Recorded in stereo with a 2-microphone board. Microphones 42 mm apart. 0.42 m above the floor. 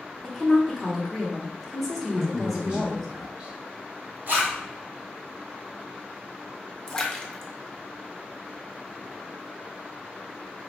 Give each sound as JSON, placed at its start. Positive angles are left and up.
{"t": 0.2, "sound": "a woman speaking", "side_deg": 0, "distance_m": 0.9}
{"t": 2.1, "sound": "a man speaking", "side_deg": -25, "distance_m": 1.5}
{"t": 4.3, "sound": "a zipper", "side_deg": -50, "distance_m": 1.6}
{"t": 6.9, "sound": "a splash", "side_deg": 15, "distance_m": 0.5}